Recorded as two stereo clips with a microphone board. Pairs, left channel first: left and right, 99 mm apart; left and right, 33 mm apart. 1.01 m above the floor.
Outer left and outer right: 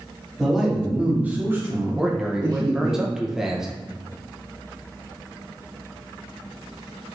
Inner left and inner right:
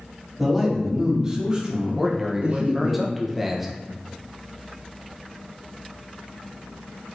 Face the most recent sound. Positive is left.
turn(degrees=-5)  # may be behind; listen again after turning